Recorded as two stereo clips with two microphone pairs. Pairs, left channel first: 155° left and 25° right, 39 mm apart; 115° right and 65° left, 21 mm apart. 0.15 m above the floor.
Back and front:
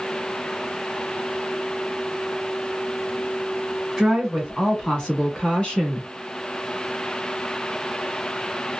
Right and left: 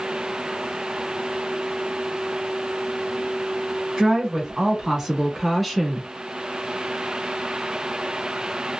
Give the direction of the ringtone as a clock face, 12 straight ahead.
No ringtone in this recording.